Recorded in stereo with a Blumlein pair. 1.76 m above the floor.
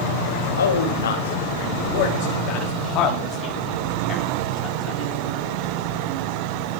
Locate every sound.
0.6 s a man speaking: 70° left, 3 m; by 5.1 s 20° left, 5.5 m